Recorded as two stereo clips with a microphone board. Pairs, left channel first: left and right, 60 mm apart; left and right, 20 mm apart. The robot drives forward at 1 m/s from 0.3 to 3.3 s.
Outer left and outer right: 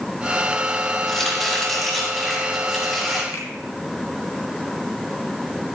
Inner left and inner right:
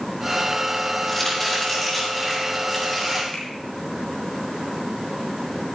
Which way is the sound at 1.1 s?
Centre (ahead or behind).